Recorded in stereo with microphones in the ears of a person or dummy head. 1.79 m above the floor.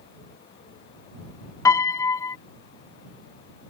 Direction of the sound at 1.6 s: 15° left (ahead or behind).